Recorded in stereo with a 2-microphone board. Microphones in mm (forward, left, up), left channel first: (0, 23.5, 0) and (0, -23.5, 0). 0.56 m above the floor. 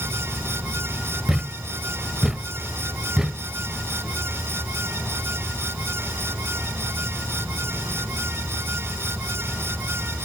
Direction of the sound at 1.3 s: 10° right (ahead or behind).